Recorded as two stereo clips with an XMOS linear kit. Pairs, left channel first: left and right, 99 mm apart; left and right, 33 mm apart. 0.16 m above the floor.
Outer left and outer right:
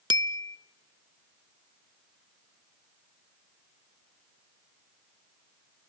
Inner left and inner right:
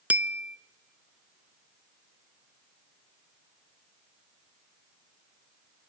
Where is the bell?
55° right (ahead or behind), 0.6 m.